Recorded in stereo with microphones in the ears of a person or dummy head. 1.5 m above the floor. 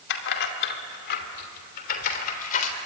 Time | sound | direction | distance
0.1 | keys jangling | 65° left (ahead or behind) | 2.5 m